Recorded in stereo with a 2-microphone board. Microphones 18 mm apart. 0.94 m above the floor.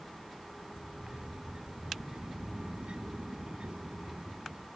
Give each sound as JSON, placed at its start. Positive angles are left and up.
{"t": 0.7, "sound": "a sliding door", "side_deg": -65}